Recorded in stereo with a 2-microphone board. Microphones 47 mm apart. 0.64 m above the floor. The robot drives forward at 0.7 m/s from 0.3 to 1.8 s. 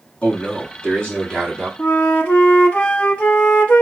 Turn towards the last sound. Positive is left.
turn(degrees=30)  # may be behind; listen again after turning